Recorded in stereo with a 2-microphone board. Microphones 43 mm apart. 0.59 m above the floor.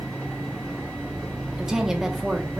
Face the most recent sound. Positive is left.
turn(degrees=-15)  # may be behind; listen again after turning